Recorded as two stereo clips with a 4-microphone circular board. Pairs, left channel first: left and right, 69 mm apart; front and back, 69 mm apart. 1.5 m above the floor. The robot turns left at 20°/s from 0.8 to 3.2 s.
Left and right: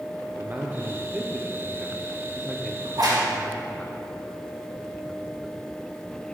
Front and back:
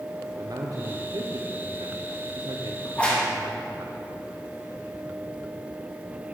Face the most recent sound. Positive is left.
turn(degrees=-75)